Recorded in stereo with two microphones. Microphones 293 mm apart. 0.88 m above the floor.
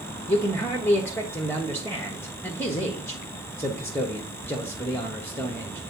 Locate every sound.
0.3 s a man speaking: 5° left (ahead or behind), 1.2 m